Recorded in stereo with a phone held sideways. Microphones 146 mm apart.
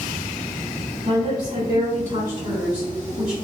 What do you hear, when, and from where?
1.1 s a woman speaking: 45° right (ahead or behind), 1.7 m; by 3.3 s 10° right (ahead or behind), 0.7 m